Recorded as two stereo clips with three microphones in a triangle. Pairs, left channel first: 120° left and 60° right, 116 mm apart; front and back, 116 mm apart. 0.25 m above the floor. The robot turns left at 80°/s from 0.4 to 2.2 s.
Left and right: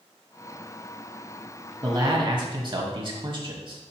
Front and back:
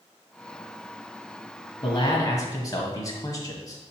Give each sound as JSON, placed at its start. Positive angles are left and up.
{"t": 1.8, "sound": "a man speaking", "azimuth_deg": -15, "distance_m": 1.2}